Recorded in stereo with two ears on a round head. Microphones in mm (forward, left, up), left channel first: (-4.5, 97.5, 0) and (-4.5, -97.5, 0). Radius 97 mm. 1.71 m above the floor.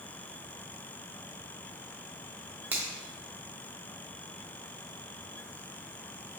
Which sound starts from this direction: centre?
A finger snap, at 2.7 s.